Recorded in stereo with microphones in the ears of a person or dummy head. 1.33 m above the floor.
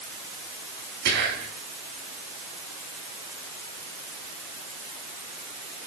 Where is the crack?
I don't hear a crack.